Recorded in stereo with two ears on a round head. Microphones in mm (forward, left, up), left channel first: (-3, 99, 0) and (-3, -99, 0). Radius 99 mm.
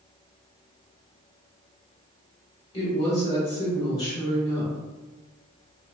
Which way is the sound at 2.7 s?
20° left (ahead or behind).